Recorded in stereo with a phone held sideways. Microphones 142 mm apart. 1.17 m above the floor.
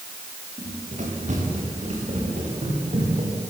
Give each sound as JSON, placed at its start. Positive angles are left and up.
{"t": 0.6, "sound": "running footsteps", "side_deg": -60, "distance_m": 9.0}